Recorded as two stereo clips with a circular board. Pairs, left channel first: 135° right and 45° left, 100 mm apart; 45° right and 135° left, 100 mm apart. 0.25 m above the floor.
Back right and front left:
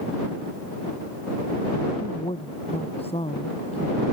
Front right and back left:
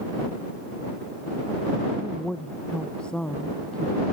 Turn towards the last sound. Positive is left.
turn(degrees=-125)